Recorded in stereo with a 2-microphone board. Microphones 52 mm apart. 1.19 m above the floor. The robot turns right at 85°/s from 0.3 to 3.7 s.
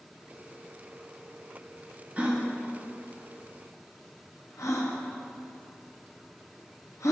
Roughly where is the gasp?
Right.